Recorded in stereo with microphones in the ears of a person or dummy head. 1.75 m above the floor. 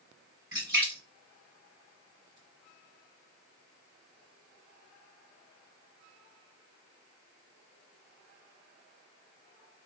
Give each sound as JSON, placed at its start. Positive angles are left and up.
{"t": 0.5, "sound": "a splash", "side_deg": -20, "distance_m": 2.0}